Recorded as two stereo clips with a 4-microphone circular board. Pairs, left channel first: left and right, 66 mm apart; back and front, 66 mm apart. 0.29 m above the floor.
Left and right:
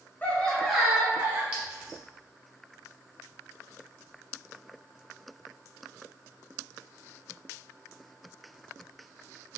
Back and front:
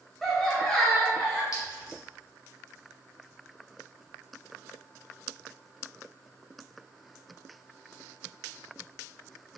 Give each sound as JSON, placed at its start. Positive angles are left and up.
{"t": 0.2, "sound": "laughter", "azimuth_deg": 100, "distance_m": 1.0}
{"t": 1.5, "sound": "a clink", "azimuth_deg": -160, "distance_m": 1.4}